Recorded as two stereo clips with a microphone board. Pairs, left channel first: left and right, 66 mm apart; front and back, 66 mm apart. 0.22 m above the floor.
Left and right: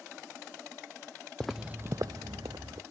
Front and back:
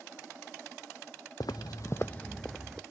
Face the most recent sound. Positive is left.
turn(degrees=-95)